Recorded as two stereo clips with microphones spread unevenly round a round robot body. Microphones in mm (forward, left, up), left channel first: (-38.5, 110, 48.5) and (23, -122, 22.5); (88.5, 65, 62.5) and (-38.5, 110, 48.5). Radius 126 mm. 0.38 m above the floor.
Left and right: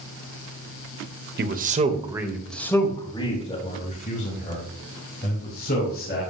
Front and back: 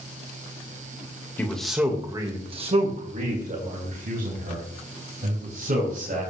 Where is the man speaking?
100° right, 1.4 m; by 6.2 s 155° left, 5 m.